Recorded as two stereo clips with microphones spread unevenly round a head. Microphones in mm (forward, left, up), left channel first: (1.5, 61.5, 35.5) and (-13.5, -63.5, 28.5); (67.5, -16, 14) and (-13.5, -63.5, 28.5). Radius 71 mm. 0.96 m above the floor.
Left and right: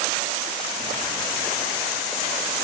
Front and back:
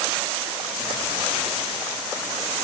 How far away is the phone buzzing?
About 2.5 m.